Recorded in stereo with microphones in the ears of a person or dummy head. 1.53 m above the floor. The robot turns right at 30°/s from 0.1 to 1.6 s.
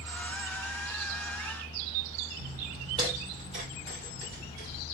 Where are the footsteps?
20° right (ahead or behind), 1.7 m; by 4.8 s 50° right (ahead or behind), 2.5 m.